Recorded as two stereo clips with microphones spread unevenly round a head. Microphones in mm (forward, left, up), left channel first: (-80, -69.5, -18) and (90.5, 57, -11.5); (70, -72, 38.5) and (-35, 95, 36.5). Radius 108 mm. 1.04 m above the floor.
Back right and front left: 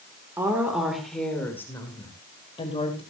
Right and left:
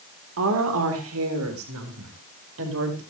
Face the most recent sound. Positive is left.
turn(degrees=150)